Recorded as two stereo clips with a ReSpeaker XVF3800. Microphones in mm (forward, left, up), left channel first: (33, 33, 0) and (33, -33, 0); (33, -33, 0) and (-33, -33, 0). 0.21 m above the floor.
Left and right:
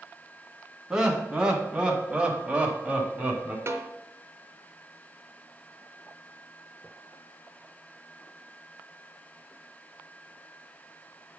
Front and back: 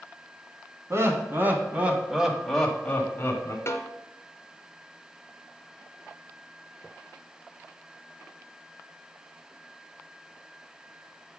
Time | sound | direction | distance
0.9 | laughter | 165° right | 1.5 m
3.7 | a snare drum | 45° right | 0.9 m